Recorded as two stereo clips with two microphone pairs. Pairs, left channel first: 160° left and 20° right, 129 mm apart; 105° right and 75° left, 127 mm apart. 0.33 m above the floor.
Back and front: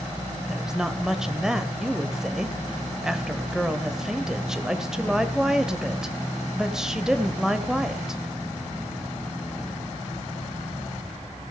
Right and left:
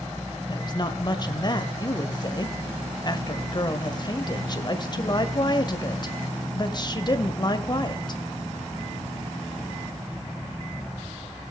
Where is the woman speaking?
105° right, 1.8 m.